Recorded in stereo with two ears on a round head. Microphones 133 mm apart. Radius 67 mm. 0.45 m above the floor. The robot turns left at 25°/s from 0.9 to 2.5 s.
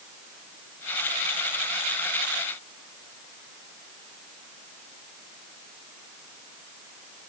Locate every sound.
Only background noise.